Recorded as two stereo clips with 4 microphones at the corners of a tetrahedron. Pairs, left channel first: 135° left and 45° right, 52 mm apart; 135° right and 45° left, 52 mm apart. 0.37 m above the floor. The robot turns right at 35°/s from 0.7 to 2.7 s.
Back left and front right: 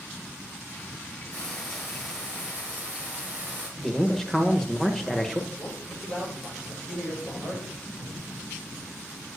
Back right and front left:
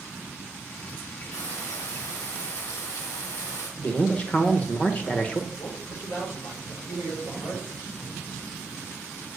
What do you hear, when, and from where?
1.3 s frying: 160° right, 6.5 m; by 3.7 s 110° right, 6.5 m
3.8 s a man speaking: 150° right, 1.0 m
5.5 s a man speaking: 145° right, 6.5 m